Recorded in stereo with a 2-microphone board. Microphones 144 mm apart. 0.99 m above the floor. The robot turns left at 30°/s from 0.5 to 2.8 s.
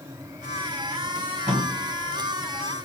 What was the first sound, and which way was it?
Tape being pulled, 65° right (ahead or behind).